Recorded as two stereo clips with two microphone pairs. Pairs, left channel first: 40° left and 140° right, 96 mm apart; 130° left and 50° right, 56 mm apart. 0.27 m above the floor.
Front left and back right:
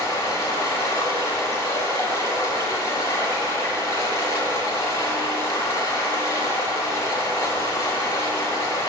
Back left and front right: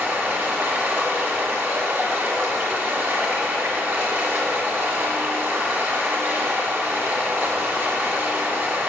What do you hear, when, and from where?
0.0 s running water: 10° right, 2 m